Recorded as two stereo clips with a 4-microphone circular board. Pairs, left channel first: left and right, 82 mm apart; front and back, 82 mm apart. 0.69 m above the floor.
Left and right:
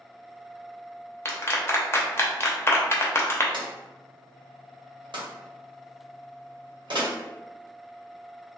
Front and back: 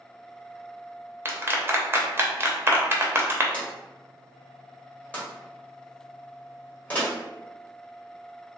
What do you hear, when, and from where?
1.2 s a clap: 130° left, 0.6 m
3.5 s a drawer: 75° right, 1.8 m